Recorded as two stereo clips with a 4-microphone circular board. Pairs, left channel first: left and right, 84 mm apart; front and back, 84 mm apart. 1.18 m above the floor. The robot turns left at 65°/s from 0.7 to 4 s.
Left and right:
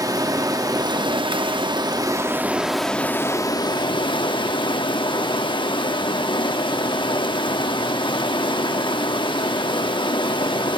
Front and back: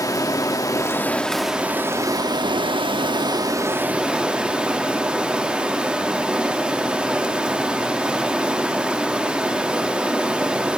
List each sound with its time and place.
0.0 s running water: 45° right, 1.5 m; by 10.8 s 100° left, 1.5 m